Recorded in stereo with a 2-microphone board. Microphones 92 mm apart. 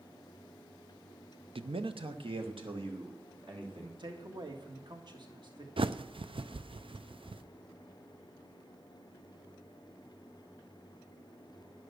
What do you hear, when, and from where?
1.6 s a man speaking: 80° right, 0.6 m; by 3.9 s 70° right (ahead or behind), 4 m
4.0 s a man speaking: 55° right (ahead or behind), 1.8 m
5.8 s a bird: 75° right (ahead or behind), 0.6 m